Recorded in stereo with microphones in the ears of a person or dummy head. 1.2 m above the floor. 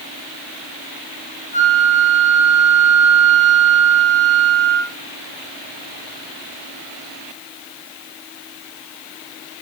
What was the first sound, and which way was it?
A flute, 30° left (ahead or behind).